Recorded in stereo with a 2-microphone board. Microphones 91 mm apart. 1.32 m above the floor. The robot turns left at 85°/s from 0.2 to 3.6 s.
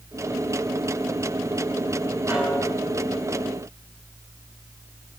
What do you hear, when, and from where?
2.3 s a snare drum: 155° right, 9.5 m; by 2.7 s 170° left, 9.5 m